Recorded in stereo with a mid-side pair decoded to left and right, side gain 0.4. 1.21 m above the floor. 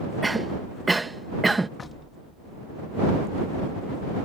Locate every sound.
0.2 s a cough: 20° right
1.8 s knocking: 35° left